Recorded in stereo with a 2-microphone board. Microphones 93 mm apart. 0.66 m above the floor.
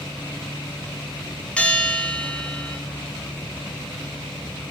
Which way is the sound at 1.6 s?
15° left (ahead or behind).